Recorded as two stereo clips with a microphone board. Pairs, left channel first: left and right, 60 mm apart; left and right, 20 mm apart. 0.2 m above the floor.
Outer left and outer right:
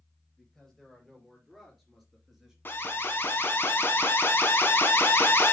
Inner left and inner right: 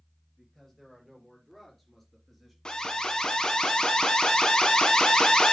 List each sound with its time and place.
0.4 s a man speaking: 5° left (ahead or behind), 4 m; by 2.5 s 5° right (ahead or behind), 3 m
2.6 s an alarm: 40° left (ahead or behind), 1.4 m